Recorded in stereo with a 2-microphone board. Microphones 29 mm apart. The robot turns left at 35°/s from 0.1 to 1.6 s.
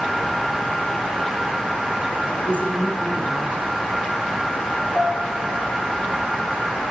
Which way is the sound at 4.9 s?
60° left (ahead or behind).